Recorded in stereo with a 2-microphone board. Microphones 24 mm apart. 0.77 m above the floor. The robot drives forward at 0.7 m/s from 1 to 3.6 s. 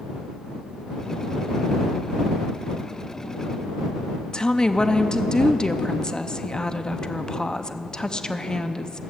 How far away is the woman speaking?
About 0.6 m.